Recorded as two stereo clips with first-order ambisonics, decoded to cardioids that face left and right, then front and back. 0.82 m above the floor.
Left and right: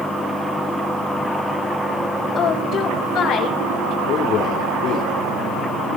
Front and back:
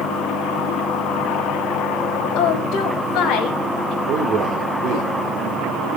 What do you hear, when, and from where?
2.4 s a woman speaking: 35° left, 3.5 m; by 4.0 s 55° left, 2.5 m
4.1 s a man speaking: 135° left, 2.5 m